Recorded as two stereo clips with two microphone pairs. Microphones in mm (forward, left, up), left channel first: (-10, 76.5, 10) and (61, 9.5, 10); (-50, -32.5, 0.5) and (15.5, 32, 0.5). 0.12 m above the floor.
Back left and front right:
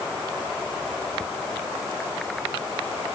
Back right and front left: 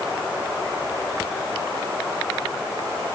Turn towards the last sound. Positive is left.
No sound to turn to.